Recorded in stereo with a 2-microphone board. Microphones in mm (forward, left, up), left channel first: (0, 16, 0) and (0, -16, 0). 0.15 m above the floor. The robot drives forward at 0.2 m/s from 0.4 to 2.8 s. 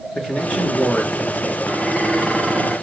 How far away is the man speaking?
About 2 m.